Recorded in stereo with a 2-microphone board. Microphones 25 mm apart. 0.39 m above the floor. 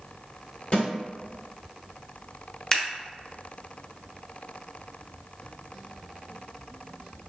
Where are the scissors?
25° left (ahead or behind), 0.6 m.